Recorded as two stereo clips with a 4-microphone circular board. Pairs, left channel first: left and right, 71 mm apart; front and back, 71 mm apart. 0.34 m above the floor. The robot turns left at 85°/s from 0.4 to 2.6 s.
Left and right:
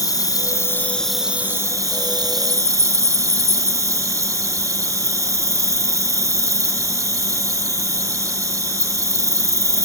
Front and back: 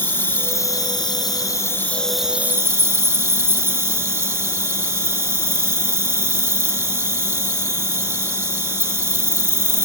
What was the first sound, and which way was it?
An insect, 60° left.